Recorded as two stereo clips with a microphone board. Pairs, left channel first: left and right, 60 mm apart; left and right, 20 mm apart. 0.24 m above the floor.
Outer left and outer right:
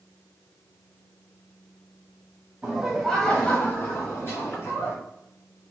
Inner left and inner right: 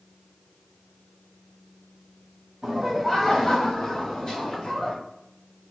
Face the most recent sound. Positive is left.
turn(degrees=55)  # may be behind; listen again after turning